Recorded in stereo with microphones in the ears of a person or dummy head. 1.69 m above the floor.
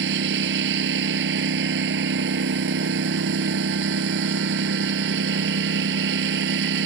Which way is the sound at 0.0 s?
65° right (ahead or behind).